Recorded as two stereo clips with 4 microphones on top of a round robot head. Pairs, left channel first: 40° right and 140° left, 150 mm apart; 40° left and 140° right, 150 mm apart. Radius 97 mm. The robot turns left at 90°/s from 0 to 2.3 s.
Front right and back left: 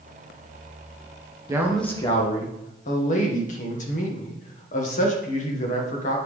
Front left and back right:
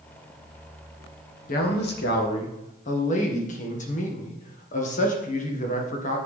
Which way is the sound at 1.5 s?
75° left.